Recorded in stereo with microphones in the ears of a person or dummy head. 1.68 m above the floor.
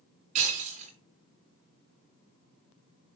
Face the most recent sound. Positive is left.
turn(degrees=-40)  # may be behind; listen again after turning